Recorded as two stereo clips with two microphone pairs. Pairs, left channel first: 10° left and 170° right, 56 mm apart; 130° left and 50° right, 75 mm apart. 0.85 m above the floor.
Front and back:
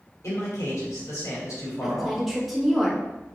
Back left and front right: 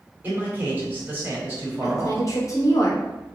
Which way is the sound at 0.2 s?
15° left.